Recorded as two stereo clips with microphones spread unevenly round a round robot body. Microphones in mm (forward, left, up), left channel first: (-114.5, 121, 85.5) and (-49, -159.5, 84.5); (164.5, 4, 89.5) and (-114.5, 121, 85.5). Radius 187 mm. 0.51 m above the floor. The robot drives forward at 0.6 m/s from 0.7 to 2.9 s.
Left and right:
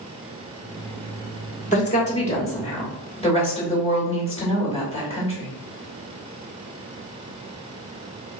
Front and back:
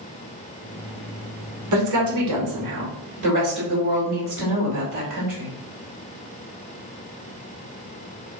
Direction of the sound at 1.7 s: 165° left.